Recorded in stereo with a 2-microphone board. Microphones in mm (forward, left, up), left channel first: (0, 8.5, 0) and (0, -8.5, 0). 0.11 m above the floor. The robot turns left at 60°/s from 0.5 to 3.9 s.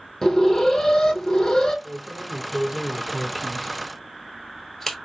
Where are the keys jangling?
45° right (ahead or behind), 1.1 m; by 5.0 s 15° left (ahead or behind), 1.1 m.